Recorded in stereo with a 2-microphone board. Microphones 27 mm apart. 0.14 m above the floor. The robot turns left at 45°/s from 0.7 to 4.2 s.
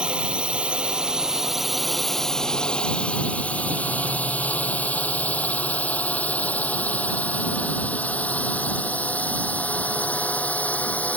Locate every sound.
0.0 s a drone: 40° right (ahead or behind); by 11.2 s 70° left (ahead or behind)